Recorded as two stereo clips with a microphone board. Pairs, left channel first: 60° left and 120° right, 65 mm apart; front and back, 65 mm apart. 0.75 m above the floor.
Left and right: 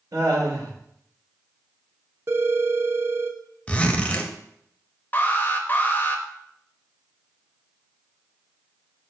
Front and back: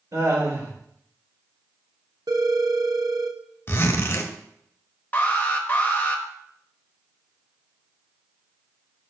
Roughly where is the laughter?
Behind right.